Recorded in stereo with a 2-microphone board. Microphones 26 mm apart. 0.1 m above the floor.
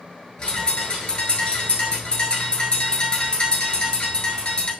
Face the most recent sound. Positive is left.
turn(degrees=35)  # may be behind; listen again after turning